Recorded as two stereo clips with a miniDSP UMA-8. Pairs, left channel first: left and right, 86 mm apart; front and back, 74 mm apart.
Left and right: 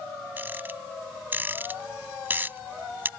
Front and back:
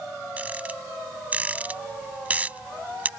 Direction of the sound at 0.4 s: 130° right.